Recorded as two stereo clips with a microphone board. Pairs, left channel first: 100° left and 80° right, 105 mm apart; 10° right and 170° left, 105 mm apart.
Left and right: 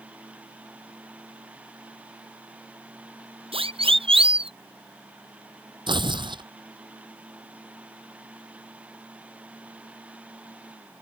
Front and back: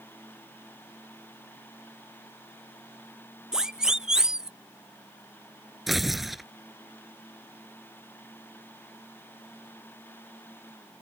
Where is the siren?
105° right.